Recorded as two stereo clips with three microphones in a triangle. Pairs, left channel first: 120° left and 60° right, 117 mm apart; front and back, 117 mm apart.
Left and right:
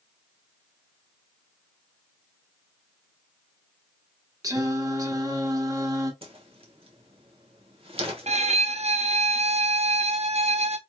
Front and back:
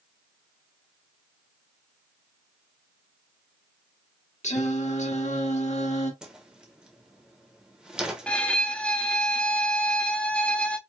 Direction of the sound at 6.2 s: 95° right.